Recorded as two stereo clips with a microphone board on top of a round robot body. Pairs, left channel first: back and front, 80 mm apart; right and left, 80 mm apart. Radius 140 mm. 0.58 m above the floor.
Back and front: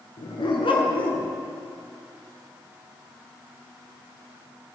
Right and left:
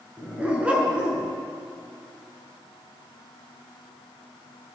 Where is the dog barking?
160° left, 4.5 m; by 1.3 s 175° left, 3.5 m.